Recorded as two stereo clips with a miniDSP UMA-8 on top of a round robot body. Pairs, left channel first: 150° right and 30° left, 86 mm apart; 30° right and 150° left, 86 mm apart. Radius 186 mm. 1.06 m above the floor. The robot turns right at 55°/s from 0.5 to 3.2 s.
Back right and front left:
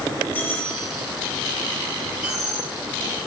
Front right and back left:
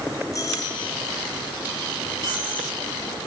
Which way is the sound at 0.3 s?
80° right.